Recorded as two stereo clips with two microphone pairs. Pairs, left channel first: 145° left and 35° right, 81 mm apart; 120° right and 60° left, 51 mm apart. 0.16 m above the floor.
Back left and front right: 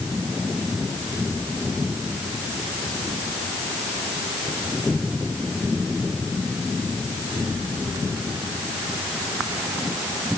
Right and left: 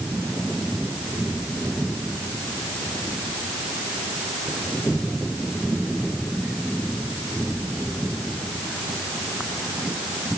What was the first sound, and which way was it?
Only background noise.